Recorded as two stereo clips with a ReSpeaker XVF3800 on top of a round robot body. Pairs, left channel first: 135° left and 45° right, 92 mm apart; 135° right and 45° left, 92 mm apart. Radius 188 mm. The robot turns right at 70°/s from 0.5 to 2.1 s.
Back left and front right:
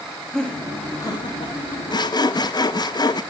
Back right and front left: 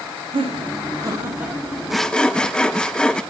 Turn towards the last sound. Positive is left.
turn(degrees=145)